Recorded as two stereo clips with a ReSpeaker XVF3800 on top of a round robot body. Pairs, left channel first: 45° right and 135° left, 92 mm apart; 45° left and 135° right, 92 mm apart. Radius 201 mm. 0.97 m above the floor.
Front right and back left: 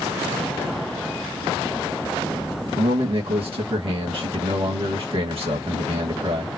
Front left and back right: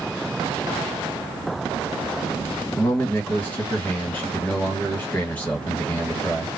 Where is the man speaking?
120° left, 1.9 m.